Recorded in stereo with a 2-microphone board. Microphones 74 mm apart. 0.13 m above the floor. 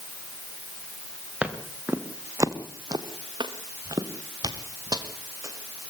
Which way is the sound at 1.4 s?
20° right (ahead or behind).